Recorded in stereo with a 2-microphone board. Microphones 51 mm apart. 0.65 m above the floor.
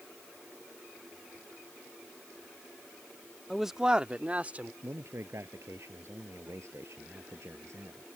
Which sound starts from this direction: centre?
A man speaking, at 3.5 s.